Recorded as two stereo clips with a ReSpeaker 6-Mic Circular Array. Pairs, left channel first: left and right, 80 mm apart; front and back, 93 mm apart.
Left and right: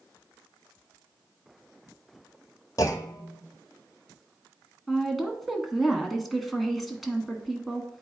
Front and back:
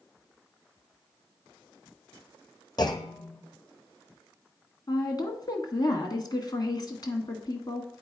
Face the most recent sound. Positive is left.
turn(degrees=0)